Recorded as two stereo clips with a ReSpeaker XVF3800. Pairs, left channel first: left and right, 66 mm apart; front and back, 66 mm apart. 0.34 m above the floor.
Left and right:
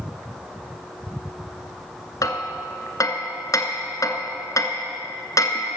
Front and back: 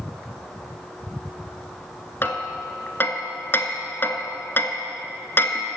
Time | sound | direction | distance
2.2 | hammering | 55° left | 1.1 m